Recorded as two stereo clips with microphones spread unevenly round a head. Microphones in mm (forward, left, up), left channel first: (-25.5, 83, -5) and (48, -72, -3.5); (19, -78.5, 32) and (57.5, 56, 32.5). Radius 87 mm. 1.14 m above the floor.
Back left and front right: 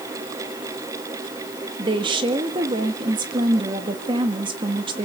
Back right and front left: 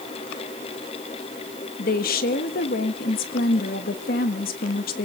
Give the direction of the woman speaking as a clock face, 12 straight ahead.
4 o'clock.